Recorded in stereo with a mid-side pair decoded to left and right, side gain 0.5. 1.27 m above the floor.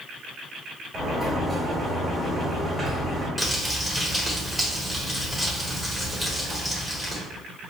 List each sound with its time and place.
0.9 s a sliding door: 5° right, 1.8 m
3.4 s crumpling: straight ahead, 1.4 m